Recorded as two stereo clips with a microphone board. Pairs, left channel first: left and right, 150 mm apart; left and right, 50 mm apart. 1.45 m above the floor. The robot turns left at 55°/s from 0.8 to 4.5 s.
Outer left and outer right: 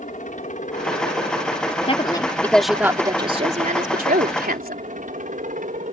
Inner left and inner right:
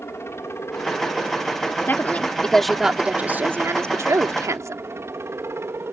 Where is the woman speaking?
45° left; by 4.8 s 100° right.